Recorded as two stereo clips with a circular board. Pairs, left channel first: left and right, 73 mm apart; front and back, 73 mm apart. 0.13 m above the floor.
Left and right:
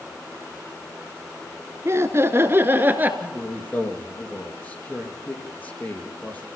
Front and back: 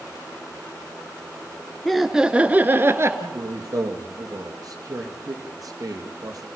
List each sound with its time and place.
1.9 s laughter: 85° right, 1.7 m; by 3.1 s 145° right, 2 m
3.2 s a man speaking: 155° left, 3.5 m